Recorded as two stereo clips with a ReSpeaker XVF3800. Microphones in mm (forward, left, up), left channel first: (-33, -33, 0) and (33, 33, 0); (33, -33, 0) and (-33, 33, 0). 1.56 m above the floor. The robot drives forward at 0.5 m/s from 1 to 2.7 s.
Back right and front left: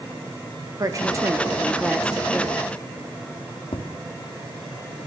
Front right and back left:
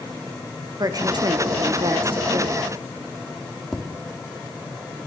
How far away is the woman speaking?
About 0.8 m.